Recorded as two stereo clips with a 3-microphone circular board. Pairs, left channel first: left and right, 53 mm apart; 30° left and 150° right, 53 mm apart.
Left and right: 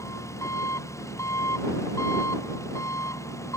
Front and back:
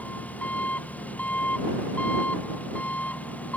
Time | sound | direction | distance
0.0 | an engine running | 90° left | ?